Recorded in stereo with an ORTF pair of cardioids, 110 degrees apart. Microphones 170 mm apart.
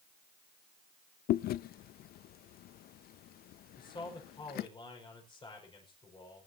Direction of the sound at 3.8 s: 30° left.